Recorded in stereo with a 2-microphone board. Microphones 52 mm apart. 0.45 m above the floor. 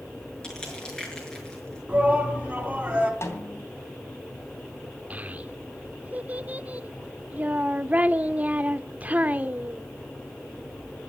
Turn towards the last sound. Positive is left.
turn(degrees=-30)  # may be behind; listen again after turning